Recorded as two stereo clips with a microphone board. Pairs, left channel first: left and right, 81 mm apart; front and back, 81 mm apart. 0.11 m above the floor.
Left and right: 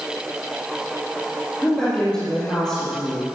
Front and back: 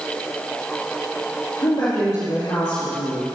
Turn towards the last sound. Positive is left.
turn(degrees=10)